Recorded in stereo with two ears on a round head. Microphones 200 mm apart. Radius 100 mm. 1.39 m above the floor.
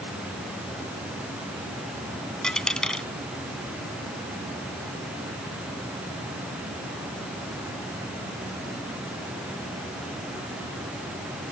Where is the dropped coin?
5° left (ahead or behind).